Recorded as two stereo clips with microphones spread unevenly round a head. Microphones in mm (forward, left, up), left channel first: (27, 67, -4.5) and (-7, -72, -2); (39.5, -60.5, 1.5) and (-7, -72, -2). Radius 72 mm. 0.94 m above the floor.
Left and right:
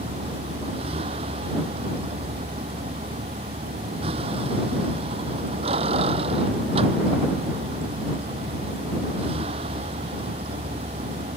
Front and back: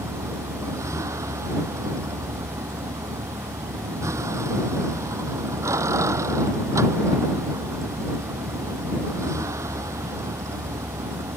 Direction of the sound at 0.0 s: 160° right.